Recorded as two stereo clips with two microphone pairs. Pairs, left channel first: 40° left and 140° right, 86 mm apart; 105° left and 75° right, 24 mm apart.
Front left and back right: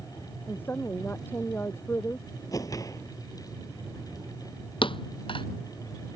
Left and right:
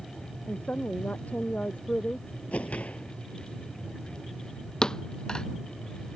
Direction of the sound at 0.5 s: 110° left.